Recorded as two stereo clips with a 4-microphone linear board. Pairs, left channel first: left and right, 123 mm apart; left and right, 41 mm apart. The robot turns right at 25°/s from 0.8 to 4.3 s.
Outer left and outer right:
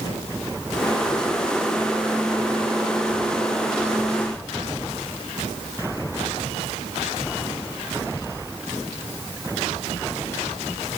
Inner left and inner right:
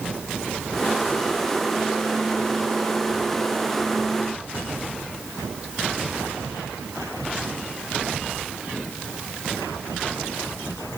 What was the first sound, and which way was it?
Only background noise.